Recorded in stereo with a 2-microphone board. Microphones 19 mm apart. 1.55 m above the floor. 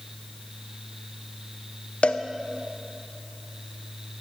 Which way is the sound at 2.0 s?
75° left (ahead or behind).